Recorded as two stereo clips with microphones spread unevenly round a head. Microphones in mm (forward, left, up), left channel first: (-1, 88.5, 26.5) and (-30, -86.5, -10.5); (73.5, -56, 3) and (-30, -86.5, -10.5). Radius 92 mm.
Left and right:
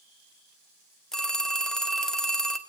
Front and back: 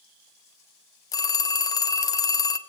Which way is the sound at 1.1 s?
10° left.